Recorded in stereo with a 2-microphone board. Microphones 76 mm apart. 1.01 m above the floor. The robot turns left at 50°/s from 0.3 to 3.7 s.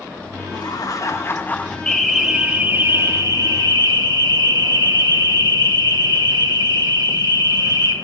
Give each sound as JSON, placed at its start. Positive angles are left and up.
{"t": 0.5, "sound": "laughter", "azimuth_deg": 80, "distance_m": 1.4}
{"t": 1.9, "sound": "an alarm", "azimuth_deg": 15, "distance_m": 1.8}